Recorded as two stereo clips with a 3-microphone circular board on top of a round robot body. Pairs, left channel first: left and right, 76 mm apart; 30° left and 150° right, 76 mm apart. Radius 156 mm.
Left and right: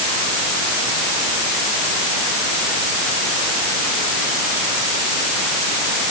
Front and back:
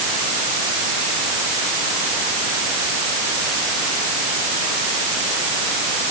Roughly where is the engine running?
I don't hear an engine running.